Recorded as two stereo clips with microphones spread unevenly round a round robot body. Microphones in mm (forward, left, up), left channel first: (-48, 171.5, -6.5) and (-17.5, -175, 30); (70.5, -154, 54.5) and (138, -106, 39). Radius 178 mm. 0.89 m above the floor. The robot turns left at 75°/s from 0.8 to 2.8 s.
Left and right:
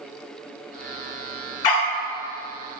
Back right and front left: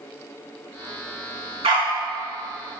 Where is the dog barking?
65° left, 1.2 m; by 1.9 s 40° left, 1.2 m.